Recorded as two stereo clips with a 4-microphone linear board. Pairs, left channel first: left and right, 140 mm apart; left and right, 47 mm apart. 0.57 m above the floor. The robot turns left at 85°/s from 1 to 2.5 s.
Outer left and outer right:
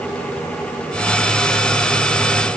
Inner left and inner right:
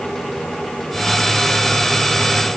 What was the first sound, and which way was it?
Only background noise.